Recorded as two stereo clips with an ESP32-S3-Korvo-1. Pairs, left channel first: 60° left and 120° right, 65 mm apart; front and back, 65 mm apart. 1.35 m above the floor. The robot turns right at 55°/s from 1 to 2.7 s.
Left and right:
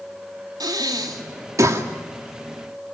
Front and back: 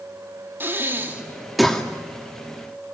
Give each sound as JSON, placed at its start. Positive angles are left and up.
{"t": 0.6, "sound": "breathing", "azimuth_deg": -120, "distance_m": 2.5}